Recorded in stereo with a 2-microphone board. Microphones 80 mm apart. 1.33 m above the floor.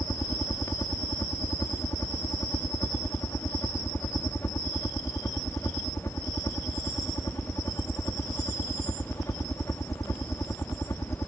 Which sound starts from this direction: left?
A helicopter, at 0.0 s.